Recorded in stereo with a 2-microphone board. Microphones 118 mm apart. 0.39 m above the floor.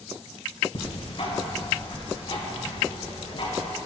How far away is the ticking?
About 1.7 m.